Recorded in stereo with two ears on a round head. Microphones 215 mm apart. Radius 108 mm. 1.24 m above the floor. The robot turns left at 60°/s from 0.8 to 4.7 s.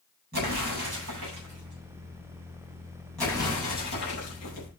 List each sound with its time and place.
0.3 s an explosion: 40° right (ahead or behind), 9.5 m; by 4.7 s 85° left, 9.5 m